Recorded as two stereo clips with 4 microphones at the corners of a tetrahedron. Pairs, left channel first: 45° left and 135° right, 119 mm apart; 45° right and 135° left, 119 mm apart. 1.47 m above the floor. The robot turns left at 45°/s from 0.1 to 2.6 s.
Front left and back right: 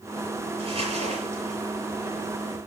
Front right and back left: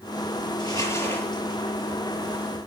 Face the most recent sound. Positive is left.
turn(degrees=175)